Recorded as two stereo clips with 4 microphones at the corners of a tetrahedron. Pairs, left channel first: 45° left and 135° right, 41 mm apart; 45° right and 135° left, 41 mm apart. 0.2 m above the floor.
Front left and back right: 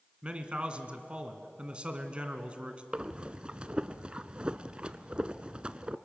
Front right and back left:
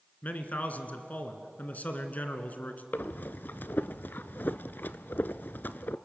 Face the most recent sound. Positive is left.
turn(degrees=-75)